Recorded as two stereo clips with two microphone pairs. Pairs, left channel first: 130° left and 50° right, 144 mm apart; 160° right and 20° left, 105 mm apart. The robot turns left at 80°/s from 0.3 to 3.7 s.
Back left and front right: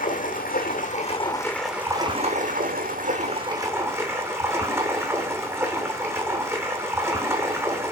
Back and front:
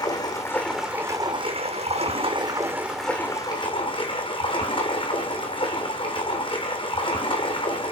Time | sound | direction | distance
0.0 | running water | 150° left | 2.5 m